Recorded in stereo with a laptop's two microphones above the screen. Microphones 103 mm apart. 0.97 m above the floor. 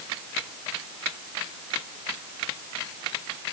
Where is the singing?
No singing in this recording.